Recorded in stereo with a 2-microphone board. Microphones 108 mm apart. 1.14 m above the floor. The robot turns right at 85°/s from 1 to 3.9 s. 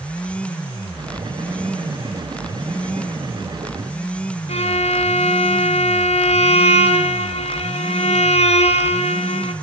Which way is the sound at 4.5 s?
80° left.